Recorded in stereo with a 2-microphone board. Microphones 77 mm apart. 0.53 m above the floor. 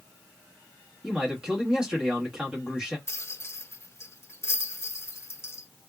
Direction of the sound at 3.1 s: 35° left (ahead or behind).